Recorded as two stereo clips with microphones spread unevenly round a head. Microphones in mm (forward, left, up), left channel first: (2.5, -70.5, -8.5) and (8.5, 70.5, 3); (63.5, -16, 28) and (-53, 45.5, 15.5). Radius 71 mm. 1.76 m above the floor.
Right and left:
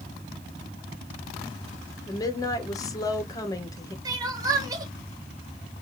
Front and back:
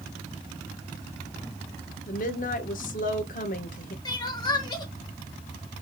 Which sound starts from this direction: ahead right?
A woman speaking, at 2.1 s.